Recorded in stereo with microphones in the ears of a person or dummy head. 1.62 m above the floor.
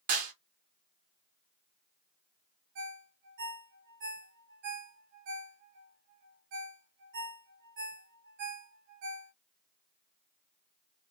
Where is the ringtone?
65° right (ahead or behind), 1.1 m.